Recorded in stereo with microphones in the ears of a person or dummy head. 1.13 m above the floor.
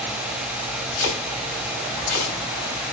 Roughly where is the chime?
I don't hear a chime.